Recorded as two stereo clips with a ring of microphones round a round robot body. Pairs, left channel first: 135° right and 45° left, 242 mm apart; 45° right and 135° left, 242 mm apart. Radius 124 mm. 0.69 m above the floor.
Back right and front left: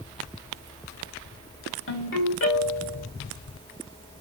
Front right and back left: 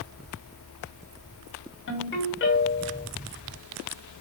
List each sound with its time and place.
1.9 s a ringtone: 90° right, 2.5 m